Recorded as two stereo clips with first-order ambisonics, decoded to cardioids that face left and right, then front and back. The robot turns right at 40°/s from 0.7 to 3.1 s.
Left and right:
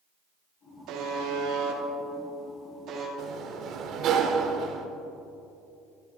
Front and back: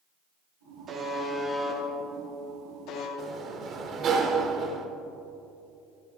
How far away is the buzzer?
About 1.9 m.